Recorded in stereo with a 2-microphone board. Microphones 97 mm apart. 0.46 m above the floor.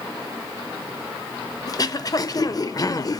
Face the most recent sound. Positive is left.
turn(degrees=40)  # may be behind; listen again after turning